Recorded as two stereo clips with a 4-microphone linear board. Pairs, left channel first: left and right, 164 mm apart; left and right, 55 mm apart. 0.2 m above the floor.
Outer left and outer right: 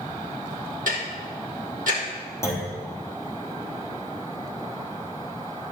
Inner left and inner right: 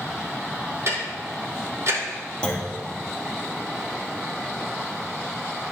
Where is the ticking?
55° right (ahead or behind), 3 m.